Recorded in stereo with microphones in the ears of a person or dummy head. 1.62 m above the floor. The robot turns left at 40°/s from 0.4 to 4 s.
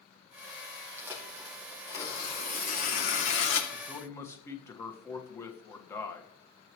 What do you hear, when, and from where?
1.0 s tearing paper: 160° right, 2 m; by 3.6 s 95° left, 2 m
3.7 s a man speaking: centre (ahead or behind), 1.4 m; by 6.3 s 15° left (ahead or behind), 1.4 m